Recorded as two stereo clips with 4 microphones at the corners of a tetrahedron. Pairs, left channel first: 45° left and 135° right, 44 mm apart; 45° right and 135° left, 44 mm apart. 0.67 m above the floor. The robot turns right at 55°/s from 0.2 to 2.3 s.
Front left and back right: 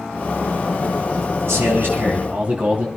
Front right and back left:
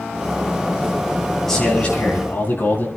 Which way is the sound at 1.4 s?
125° right.